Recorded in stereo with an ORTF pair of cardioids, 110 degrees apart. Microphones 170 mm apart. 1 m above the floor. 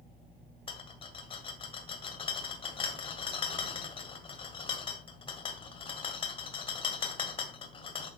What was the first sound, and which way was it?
A rattle, 35° left.